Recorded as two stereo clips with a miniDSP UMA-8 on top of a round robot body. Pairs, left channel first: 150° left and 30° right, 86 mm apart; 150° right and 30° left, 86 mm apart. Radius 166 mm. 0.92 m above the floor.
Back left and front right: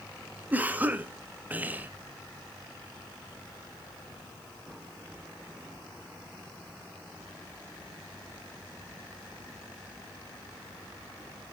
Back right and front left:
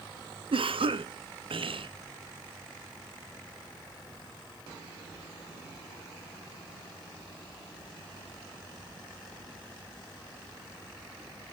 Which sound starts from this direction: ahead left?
A cough, at 0.5 s.